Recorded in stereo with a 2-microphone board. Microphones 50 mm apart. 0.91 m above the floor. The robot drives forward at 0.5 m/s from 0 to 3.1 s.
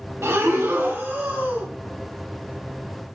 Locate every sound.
0.2 s breathing: 55° right (ahead or behind), 0.7 m; by 1.7 s 25° right (ahead or behind), 1.3 m